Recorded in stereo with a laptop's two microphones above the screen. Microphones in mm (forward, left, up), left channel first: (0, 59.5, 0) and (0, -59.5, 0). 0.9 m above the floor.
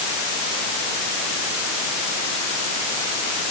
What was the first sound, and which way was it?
Only background noise.